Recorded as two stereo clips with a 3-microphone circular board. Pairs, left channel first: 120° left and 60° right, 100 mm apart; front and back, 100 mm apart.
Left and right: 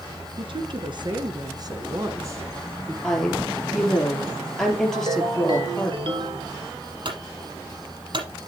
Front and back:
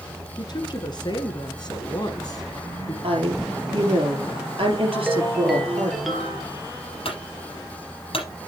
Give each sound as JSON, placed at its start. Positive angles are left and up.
{"t": 0.4, "sound": "a woman speaking", "azimuth_deg": -40, "distance_m": 3.0}
{"t": 3.0, "sound": "a woman speaking", "azimuth_deg": -155, "distance_m": 4.0}
{"t": 4.9, "sound": "a ringtone", "azimuth_deg": -90, "distance_m": 2.0}
{"t": 7.0, "sound": "a clunk", "azimuth_deg": -25, "distance_m": 6.5}